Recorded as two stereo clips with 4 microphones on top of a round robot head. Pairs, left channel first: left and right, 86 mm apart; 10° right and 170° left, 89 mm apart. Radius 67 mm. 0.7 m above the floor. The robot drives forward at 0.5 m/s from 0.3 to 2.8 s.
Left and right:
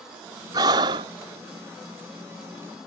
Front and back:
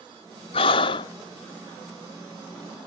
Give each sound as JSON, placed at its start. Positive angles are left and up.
{"t": 0.5, "sound": "breathing", "azimuth_deg": -40}